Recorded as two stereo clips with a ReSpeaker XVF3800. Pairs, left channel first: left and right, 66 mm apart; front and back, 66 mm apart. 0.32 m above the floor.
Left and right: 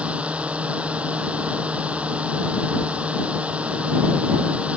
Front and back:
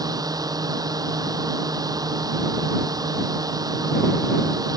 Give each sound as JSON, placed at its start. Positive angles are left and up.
{"t": 0.0, "sound": "a drone", "azimuth_deg": -160}